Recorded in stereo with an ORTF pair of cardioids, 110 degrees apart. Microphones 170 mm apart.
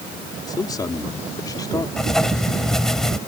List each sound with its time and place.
0.5 s a man speaking: 25° left
2.0 s writing: straight ahead